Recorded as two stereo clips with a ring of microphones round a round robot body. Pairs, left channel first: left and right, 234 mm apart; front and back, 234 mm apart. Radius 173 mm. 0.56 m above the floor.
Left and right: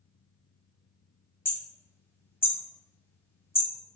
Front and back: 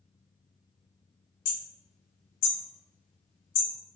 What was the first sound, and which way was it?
Hammering, 10° left.